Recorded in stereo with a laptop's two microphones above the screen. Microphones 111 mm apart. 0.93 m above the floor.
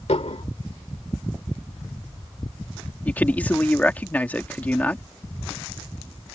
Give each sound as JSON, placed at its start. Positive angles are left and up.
{"t": 0.1, "sound": "dishes clattering", "side_deg": 75}
{"t": 3.0, "sound": "a man speaking", "side_deg": 15}